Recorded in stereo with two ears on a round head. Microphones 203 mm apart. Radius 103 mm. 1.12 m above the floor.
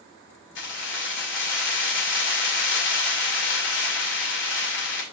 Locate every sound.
0.6 s keys jangling: 55° left (ahead or behind), 2.5 m